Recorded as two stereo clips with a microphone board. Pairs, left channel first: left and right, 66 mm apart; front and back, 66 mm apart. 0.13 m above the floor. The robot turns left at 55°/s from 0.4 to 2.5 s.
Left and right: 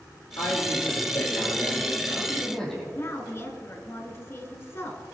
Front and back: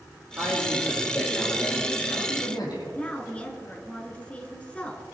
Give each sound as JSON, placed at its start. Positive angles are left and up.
{"t": 0.4, "sound": "a man speaking", "azimuth_deg": 125, "distance_m": 4.5}
{"t": 3.0, "sound": "a woman speaking", "azimuth_deg": 60, "distance_m": 1.4}